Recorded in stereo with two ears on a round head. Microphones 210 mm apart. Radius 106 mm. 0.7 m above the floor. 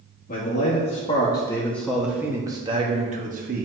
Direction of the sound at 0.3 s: 40° left (ahead or behind).